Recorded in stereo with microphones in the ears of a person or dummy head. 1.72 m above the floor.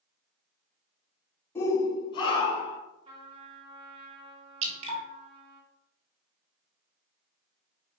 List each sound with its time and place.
1.6 s a shout: 20° left (ahead or behind), 1.4 m; by 2.8 s 45° left (ahead or behind), 1.6 m
3.0 s a trumpet: 30° right (ahead or behind), 1.8 m
4.6 s dripping: 35° right (ahead or behind), 1.8 m